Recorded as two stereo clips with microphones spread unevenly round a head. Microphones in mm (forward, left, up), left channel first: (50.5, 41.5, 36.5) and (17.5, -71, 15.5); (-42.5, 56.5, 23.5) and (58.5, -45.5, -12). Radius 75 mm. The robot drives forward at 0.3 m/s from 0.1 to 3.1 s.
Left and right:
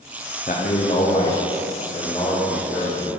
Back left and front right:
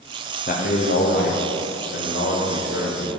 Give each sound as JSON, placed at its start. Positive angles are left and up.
{"t": 0.5, "sound": "a man speaking", "azimuth_deg": 110, "distance_m": 0.7}